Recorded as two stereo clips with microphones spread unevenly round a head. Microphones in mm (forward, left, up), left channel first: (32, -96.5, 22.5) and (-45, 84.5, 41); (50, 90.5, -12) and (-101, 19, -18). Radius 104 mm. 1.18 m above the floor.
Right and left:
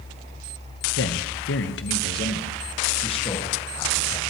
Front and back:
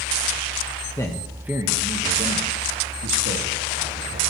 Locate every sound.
1.0 s a man speaking: 50° right, 1.1 m; by 4.3 s 140° right, 2.5 m